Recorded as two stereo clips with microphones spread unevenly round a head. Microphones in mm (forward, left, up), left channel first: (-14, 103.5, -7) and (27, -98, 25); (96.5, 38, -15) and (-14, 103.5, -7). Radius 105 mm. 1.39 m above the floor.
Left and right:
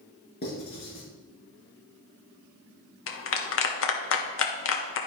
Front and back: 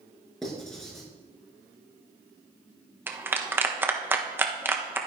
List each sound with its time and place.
0.4 s writing: 55° left, 5 m
3.1 s a clap: 75° left, 1.3 m